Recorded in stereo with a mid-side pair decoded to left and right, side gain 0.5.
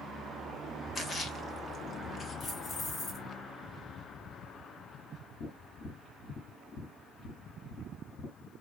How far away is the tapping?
About 4 m.